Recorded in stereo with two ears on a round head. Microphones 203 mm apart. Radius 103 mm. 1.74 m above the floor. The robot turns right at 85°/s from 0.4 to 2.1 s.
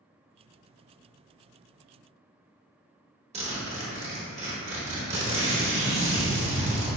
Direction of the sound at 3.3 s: 30° right (ahead or behind).